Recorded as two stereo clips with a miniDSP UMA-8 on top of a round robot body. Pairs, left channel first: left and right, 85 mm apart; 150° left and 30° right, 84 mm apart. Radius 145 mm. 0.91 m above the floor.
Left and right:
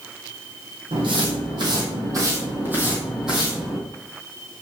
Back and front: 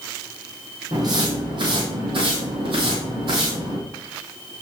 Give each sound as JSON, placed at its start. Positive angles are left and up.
{"t": 0.9, "sound": "footsteps", "azimuth_deg": -70, "distance_m": 2.0}